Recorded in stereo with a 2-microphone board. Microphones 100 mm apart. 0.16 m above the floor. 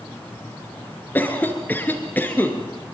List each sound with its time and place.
1.1 s a cough: 20° left (ahead or behind), 3 m